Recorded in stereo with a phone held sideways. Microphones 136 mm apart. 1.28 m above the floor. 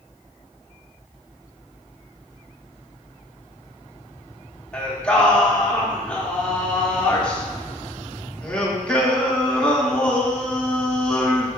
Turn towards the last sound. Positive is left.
turn(degrees=10)  # may be behind; listen again after turning